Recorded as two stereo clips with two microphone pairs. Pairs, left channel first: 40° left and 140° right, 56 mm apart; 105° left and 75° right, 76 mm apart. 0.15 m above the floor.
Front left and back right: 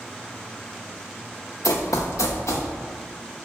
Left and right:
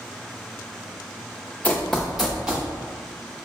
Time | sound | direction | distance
1.6 | running footsteps | 30° left | 0.7 m